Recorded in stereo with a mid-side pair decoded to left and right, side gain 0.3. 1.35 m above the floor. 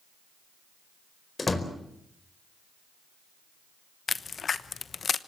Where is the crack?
60° left, 1.0 m.